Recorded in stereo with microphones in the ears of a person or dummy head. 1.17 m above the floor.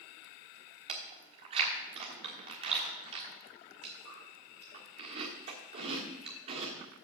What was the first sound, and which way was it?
Chewing, 30° right (ahead or behind).